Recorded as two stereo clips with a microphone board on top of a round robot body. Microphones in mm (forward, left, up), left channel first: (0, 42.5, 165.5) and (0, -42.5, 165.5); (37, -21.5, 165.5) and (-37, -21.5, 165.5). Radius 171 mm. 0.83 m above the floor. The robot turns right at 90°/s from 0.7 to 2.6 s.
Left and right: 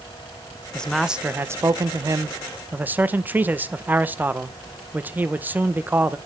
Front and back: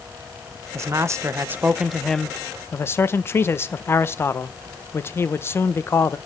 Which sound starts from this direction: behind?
A man speaking, at 0.7 s.